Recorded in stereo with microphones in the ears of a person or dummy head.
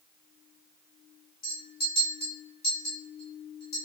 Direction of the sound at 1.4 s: 50° left (ahead or behind).